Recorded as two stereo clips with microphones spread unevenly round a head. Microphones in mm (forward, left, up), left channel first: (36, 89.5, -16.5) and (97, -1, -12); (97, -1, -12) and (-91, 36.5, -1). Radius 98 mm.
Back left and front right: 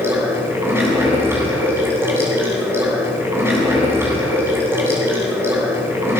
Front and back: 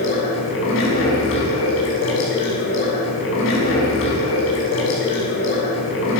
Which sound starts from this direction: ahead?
Running water, at 0.0 s.